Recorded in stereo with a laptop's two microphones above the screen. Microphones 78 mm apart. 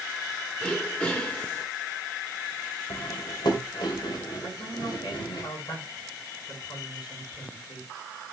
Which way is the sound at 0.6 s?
15° left (ahead or behind).